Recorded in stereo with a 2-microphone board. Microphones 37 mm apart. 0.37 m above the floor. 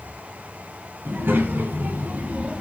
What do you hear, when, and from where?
1.1 s a child speaking: 75° right (ahead or behind), 3.5 m; by 2.6 s 35° right (ahead or behind), 2.0 m